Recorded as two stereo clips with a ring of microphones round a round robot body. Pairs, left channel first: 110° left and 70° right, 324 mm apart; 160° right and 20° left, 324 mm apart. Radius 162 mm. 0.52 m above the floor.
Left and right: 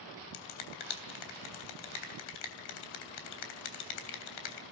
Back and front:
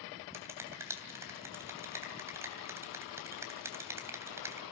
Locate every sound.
0.3 s a finger snap: 105° left, 3 m